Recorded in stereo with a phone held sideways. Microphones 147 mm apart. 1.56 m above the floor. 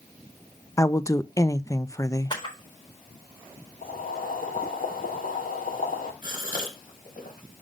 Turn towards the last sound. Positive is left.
turn(degrees=70)  # may be behind; listen again after turning